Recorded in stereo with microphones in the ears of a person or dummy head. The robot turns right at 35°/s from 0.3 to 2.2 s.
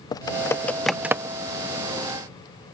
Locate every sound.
0.1 s typing on a keyboard: 15° left (ahead or behind); by 1.4 s 20° right (ahead or behind)